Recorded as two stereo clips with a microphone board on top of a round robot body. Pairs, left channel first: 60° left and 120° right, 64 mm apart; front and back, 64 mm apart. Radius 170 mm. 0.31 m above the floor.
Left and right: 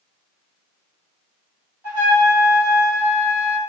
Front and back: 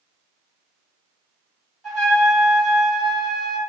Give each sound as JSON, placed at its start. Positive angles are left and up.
{"t": 1.8, "sound": "a trumpet", "azimuth_deg": -80, "distance_m": 1.9}